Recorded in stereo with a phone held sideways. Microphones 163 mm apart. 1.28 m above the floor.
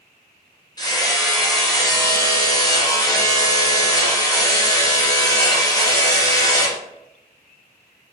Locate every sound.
0.8 s hammering: 25° left (ahead or behind), 0.7 m